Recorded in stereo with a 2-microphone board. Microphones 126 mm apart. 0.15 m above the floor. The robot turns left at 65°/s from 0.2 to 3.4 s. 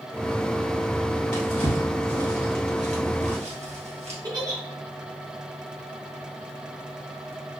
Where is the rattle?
No rattle in this recording.